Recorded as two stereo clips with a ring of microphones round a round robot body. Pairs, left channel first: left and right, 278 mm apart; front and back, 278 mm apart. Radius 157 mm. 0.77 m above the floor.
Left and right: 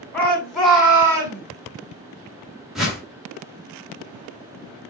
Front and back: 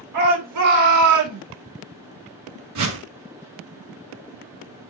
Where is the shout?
175° left, 3 m; by 1.4 s 165° right, 2.5 m.